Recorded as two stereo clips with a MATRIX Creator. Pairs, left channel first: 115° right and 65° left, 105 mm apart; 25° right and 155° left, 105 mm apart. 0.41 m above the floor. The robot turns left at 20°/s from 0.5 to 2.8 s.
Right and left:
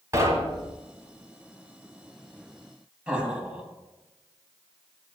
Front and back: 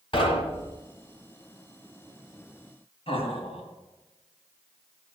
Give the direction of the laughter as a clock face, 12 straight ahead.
12 o'clock.